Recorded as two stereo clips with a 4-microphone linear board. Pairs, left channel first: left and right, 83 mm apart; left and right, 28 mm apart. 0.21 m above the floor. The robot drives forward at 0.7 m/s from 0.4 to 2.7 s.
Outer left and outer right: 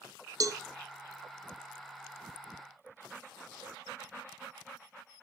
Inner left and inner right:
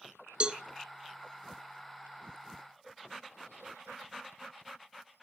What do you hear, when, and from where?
0.4 s a cowbell: 45° right (ahead or behind), 0.6 m; by 0.6 s 35° right (ahead or behind), 0.8 m